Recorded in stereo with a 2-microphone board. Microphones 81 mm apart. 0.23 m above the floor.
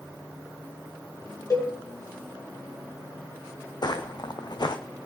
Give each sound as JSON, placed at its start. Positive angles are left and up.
{"t": 1.5, "sound": "a cowbell", "side_deg": 50, "distance_m": 2.5}
{"t": 3.8, "sound": "footsteps", "side_deg": 60, "distance_m": 0.9}